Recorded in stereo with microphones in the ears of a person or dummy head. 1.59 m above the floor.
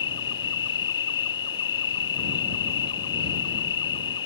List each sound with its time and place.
0.0 s an insect: 30° left (ahead or behind)